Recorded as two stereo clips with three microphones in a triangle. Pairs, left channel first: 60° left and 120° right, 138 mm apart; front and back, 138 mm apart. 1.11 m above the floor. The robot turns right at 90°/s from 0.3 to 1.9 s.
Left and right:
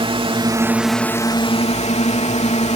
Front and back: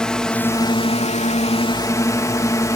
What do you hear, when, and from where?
0.0 s a drone: 85° right; by 2.8 s 60° left